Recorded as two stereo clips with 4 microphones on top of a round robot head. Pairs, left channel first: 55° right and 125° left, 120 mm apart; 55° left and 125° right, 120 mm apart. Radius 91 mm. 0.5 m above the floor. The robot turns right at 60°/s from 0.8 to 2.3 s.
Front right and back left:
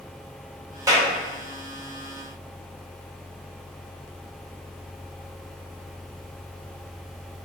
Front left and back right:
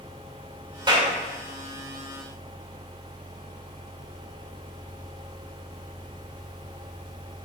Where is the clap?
175° right, 1.8 m; by 1.1 s 160° right, 1.8 m.